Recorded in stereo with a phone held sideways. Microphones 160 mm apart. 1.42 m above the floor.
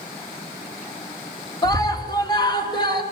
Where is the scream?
25° left (ahead or behind), 4 m; by 3.0 s 30° left (ahead or behind), 5.5 m.